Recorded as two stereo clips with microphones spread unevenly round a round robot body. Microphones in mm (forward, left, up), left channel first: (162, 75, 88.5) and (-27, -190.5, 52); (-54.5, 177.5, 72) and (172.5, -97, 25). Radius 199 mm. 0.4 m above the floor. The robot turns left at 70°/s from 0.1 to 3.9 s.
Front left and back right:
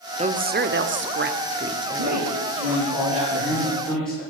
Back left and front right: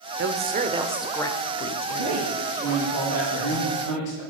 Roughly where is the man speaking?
Right.